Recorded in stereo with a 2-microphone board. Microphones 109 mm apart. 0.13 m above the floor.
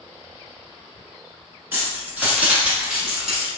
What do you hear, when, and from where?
1.7 s keys jangling: 15° right (ahead or behind), 1.2 m; by 3.5 s 5° right (ahead or behind), 1.1 m